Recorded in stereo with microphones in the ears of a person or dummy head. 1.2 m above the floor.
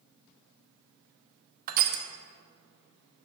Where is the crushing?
45° right (ahead or behind), 0.8 m.